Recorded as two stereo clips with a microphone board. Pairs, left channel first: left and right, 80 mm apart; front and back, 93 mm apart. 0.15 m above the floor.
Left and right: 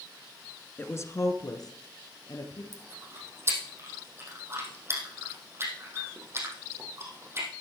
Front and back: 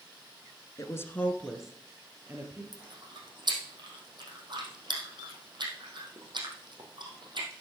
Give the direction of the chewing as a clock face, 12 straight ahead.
5 o'clock.